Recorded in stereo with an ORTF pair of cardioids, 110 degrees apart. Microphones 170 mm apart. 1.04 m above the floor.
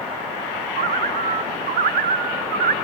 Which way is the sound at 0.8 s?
65° right.